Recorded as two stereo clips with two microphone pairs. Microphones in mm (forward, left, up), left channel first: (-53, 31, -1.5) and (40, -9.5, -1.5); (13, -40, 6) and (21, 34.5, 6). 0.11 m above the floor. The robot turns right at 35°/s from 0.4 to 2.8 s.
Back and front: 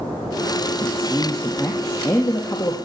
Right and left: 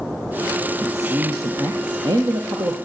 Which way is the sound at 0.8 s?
55° left.